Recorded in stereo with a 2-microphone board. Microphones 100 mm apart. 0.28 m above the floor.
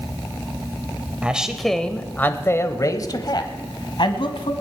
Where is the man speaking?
10° right (ahead or behind), 1.0 m; by 4.5 s 60° left (ahead or behind), 1.8 m.